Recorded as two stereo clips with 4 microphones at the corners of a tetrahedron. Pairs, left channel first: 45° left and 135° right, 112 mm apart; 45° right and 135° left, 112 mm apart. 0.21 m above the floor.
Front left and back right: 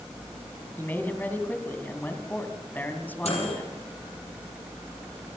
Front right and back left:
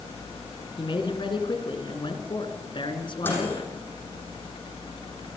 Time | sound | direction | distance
0.8 | a man speaking | 25° right | 2.5 m
3.2 | a microwave | 30° left | 7 m